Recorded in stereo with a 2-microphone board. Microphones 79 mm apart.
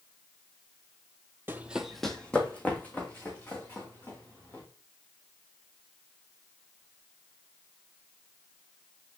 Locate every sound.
1.5 s running footsteps: 25° right (ahead or behind), 0.7 m; by 4.6 s 30° left (ahead or behind), 4.5 m